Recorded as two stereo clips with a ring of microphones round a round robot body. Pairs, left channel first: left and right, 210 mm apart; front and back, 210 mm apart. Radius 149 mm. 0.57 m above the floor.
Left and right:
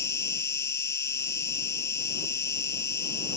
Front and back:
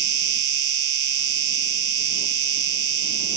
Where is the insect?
170° left.